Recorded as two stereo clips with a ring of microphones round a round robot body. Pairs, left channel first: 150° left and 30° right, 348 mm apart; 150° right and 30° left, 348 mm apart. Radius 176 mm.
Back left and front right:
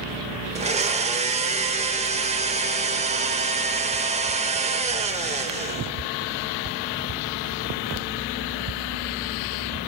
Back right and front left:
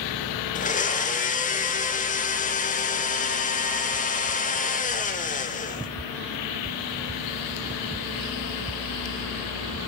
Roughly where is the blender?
Right.